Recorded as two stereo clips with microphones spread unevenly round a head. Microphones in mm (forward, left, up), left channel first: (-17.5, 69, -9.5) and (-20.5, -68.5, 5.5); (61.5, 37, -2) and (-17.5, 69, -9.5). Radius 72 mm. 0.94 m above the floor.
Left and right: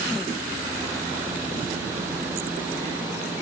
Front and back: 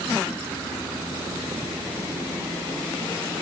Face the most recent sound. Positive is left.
No sound to turn to.